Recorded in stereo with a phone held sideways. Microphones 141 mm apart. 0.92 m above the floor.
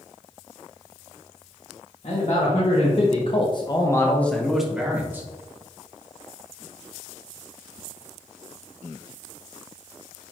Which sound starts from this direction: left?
A man speaking, at 2.0 s.